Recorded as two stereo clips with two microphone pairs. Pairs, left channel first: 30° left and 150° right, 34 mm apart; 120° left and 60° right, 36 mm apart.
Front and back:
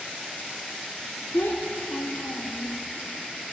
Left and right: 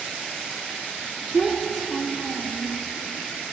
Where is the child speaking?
25° left, 1.0 m.